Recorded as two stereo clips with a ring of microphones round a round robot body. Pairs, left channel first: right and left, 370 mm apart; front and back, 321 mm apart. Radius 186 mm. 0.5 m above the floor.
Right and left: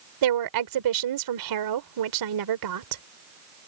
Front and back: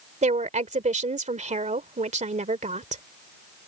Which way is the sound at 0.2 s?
115° left.